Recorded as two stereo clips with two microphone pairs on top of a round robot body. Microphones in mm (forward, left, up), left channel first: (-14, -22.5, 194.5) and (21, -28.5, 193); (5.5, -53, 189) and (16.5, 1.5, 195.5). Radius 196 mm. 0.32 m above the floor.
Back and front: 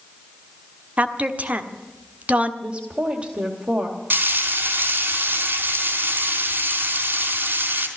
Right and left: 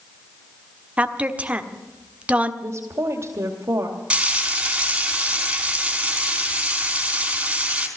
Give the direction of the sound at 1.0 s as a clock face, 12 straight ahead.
12 o'clock.